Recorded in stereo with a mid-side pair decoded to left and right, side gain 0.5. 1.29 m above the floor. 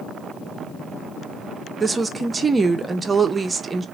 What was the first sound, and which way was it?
A woman speaking, 30° right.